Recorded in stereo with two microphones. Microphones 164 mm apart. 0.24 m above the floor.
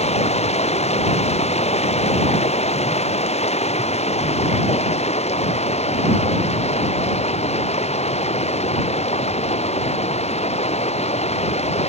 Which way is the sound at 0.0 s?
45° left (ahead or behind).